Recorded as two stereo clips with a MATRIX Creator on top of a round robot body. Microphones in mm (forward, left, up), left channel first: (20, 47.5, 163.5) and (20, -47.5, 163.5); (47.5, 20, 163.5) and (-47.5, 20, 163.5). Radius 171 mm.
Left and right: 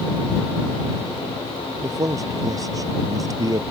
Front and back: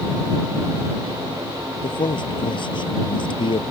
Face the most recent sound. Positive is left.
turn(degrees=-35)